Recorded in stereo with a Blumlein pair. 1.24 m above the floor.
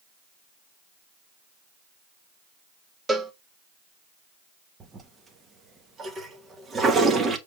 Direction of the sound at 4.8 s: 20° right.